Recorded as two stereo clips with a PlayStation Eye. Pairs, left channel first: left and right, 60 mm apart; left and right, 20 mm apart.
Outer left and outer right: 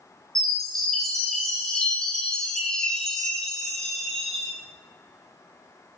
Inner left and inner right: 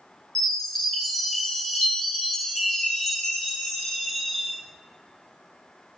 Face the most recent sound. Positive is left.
turn(degrees=10)  # may be behind; listen again after turning